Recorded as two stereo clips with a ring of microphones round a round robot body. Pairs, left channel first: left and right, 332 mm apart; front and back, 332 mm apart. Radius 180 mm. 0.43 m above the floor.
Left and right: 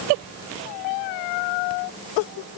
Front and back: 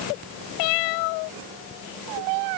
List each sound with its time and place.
Only background noise.